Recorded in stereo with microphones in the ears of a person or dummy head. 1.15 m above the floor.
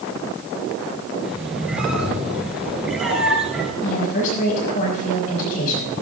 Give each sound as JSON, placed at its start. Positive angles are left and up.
{"t": 1.2, "sound": "a squeak", "side_deg": -5, "distance_m": 3.5}
{"t": 3.8, "sound": "a woman speaking", "side_deg": 50, "distance_m": 6.5}